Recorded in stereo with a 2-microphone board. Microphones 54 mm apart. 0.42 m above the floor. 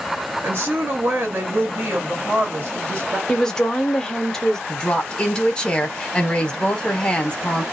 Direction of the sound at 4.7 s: 20° left (ahead or behind).